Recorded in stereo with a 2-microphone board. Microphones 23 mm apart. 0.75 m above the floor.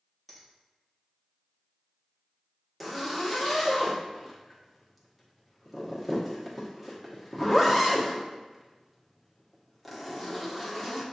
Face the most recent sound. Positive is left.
turn(degrees=0)  # may be behind; listen again after turning